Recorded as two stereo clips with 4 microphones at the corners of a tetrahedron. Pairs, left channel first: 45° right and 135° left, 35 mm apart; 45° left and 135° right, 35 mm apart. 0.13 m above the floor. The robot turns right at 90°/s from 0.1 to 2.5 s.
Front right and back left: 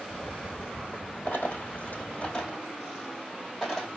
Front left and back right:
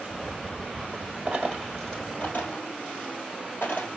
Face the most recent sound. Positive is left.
turn(degrees=25)